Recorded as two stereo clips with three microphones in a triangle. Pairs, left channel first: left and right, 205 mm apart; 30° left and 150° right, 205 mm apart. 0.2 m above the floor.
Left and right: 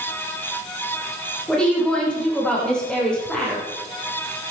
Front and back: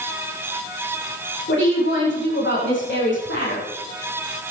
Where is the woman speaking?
5° left, 8.5 m.